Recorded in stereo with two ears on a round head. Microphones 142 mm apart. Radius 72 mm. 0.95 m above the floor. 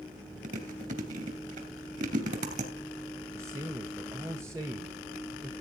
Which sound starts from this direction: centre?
A man speaking, at 3.3 s.